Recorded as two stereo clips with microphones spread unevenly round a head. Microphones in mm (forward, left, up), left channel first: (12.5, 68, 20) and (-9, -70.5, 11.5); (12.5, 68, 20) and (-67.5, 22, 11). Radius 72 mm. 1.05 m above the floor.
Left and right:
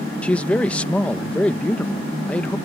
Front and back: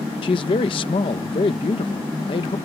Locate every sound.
0.2 s a man speaking: straight ahead